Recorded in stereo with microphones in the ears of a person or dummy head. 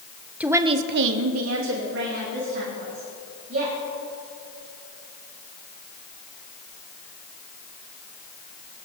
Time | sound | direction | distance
0.4 | a woman speaking | centre (ahead or behind) | 0.9 m